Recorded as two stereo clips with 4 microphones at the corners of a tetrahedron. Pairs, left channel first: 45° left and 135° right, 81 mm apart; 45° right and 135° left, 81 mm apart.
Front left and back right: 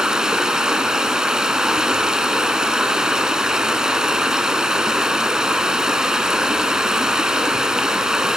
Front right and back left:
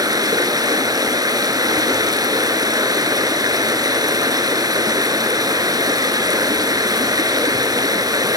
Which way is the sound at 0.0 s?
145° left.